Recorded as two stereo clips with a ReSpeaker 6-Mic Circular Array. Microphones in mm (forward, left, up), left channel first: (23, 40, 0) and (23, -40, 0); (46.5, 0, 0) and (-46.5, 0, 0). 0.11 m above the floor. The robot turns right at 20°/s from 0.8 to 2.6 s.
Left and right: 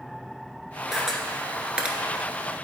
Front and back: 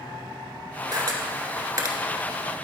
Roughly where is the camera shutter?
Behind.